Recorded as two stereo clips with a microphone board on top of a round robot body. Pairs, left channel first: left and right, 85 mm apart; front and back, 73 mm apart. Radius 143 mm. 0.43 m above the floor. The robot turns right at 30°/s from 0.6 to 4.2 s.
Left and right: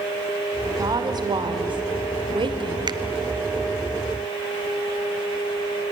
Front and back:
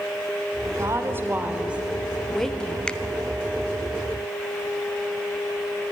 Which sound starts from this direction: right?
A finger snap, at 2.9 s.